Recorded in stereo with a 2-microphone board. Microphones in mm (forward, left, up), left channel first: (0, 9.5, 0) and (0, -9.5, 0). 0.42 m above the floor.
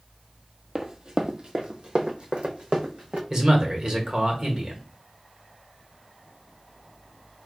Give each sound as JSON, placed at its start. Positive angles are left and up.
{"t": 0.8, "sound": "running footsteps", "side_deg": -25, "distance_m": 0.7}
{"t": 3.3, "sound": "a man speaking", "side_deg": -35, "distance_m": 1.4}